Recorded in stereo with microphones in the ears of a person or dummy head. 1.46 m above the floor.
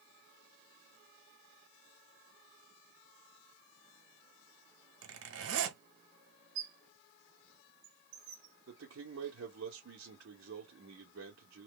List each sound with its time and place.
5.0 s a zipper: 80° right, 1.3 m
6.5 s a squeak: 60° right (ahead or behind), 1.5 m
8.7 s a man speaking: 70° right (ahead or behind), 1.0 m